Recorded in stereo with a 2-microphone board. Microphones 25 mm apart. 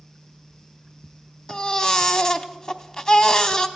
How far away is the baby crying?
About 0.8 m.